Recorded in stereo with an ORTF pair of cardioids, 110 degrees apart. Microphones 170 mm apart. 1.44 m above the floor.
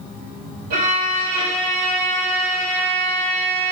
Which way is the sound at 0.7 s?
70° right.